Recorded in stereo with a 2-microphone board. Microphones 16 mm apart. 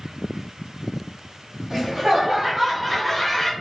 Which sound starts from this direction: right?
Laughter, at 1.7 s.